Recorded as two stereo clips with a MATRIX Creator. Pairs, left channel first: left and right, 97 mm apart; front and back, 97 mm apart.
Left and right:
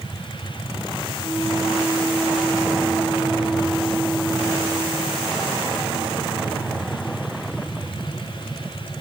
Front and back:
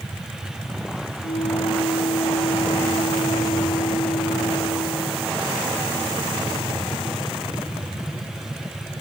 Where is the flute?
5° right.